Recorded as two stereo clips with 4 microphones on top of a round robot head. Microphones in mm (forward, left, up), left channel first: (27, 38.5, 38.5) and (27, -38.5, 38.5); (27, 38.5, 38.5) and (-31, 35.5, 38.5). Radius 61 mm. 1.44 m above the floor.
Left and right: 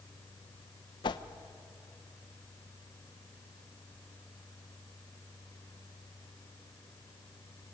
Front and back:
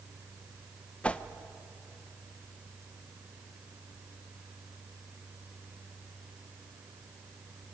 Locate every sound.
1.0 s a whoosh: 70° left, 0.8 m